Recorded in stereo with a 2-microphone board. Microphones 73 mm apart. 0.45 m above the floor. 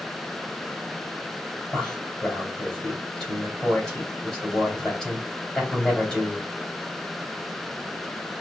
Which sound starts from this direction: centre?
A man speaking, at 1.7 s.